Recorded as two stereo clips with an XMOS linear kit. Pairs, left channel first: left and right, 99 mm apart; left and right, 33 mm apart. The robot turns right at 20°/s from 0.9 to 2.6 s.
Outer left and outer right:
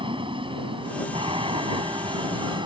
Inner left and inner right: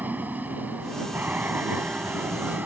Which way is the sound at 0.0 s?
100° right.